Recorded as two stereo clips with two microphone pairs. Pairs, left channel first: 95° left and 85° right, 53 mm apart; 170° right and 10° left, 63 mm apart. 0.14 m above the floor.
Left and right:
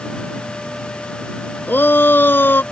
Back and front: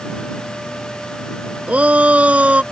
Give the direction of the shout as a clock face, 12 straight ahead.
10 o'clock.